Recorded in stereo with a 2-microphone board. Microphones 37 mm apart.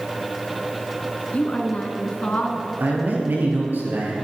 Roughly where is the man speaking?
Right.